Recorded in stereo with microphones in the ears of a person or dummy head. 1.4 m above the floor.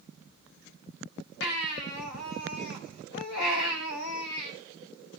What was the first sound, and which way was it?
A baby crying, 75° left (ahead or behind).